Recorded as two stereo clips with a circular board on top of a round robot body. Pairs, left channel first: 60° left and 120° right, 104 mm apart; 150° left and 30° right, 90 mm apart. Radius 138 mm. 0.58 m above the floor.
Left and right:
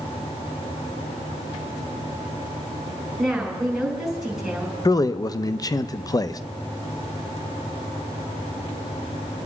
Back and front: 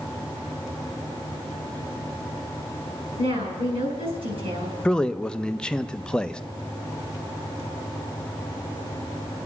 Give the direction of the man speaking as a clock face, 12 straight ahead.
10 o'clock.